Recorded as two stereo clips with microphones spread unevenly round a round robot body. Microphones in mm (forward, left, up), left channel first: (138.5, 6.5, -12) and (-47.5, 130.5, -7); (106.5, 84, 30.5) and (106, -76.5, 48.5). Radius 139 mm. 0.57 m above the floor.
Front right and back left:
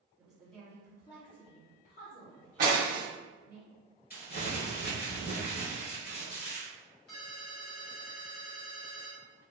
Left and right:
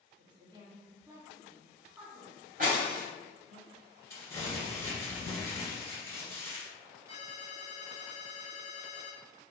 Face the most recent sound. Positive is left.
turn(degrees=-15)